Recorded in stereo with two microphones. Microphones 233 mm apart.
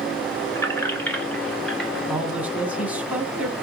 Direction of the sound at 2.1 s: 5° right (ahead or behind).